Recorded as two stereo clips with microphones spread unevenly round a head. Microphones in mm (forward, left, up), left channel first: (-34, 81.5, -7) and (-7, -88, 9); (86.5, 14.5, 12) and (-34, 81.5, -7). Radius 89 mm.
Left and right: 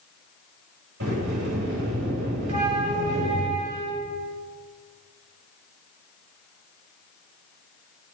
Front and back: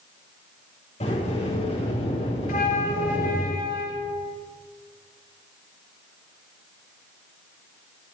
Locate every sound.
1.0 s a sliding door: 90° right, 8.5 m
2.5 s a flute: 30° right, 4.5 m